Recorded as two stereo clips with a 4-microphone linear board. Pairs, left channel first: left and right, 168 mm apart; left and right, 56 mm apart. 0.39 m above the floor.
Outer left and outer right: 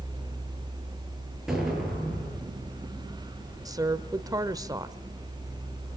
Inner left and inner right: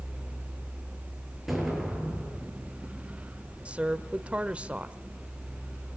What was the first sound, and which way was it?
An explosion, 5° right (ahead or behind).